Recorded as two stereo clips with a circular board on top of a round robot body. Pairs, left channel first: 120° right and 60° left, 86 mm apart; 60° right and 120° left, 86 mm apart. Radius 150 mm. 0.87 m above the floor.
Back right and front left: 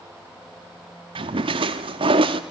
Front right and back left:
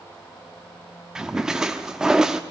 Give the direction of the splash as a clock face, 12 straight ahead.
11 o'clock.